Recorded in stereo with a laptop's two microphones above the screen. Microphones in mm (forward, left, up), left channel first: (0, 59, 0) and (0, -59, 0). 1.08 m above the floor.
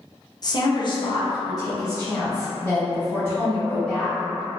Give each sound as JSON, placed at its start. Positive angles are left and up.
{"t": 0.4, "sound": "a woman speaking", "side_deg": 40, "distance_m": 0.6}